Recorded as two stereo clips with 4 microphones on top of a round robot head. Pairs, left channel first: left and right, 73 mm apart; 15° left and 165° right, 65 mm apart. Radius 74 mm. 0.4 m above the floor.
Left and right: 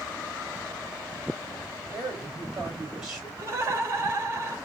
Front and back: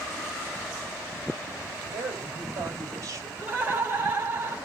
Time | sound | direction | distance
1.9 | a woman speaking | 170° right | 1.9 m
3.4 | laughter | 125° right | 1.6 m